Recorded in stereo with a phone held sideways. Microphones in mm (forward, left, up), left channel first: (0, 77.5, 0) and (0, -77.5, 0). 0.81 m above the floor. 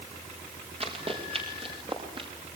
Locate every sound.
0.8 s running footsteps: 40° right (ahead or behind), 7.5 m; by 2.3 s 35° right (ahead or behind), 7.5 m